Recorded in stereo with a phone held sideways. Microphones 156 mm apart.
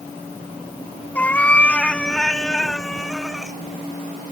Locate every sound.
1.1 s a cat meowing: 10° left (ahead or behind); by 3.6 s centre (ahead or behind)